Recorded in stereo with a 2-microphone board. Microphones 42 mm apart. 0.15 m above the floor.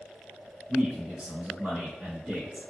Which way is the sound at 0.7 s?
20° right (ahead or behind).